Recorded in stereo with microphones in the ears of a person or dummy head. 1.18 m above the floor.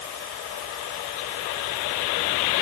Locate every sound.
Only background noise.